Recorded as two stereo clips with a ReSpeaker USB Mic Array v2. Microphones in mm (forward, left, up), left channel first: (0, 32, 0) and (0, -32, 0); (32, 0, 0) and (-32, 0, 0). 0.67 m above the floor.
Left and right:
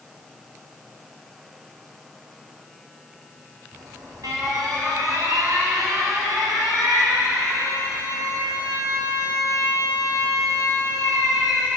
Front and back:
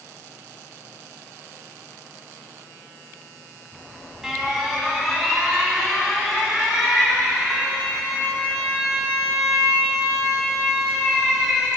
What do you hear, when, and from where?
3.7 s an alarm: 100° right, 5 m